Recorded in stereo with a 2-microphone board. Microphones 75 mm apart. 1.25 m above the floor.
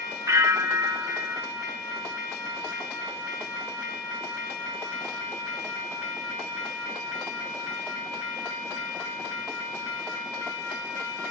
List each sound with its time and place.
0.3 s a bell: 35° right (ahead or behind), 0.5 m